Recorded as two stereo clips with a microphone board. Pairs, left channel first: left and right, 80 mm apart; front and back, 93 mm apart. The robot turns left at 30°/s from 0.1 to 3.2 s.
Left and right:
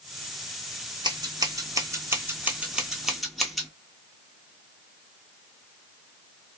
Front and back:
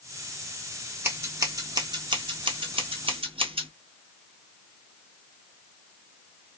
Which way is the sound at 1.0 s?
115° right.